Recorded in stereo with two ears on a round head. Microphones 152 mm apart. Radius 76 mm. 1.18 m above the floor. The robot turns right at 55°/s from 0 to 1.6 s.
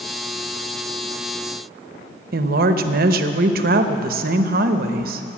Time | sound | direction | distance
2.3 | a woman speaking | 60° right (ahead or behind) | 0.9 m